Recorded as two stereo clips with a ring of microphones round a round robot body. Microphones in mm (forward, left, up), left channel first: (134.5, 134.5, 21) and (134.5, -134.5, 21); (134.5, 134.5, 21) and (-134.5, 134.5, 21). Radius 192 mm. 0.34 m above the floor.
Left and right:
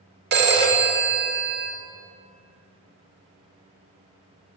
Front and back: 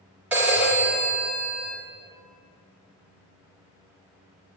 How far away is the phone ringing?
About 0.6 m.